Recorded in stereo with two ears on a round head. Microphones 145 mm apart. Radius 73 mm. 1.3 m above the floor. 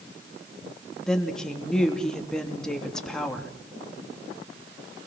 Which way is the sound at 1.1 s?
5° left (ahead or behind).